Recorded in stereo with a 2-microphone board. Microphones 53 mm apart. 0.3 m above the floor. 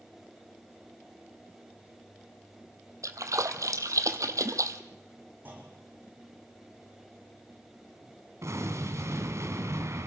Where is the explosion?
65° right (ahead or behind), 2.5 m.